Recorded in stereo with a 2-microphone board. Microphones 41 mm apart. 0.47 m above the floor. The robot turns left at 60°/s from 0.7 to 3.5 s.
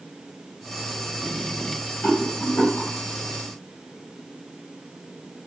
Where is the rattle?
35° left (ahead or behind), 1.0 m; by 2.9 s 40° left (ahead or behind), 1.0 m.